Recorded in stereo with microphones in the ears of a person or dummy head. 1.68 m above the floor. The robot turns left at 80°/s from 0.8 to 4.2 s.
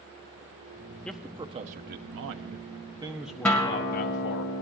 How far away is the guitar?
About 0.8 m.